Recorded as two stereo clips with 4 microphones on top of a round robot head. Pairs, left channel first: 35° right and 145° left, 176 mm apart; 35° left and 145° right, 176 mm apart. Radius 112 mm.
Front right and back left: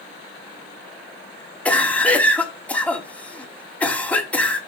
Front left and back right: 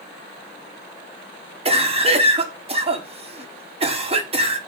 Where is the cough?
115° right, 1.0 m.